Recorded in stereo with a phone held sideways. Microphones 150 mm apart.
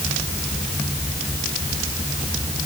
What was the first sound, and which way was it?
Only background noise.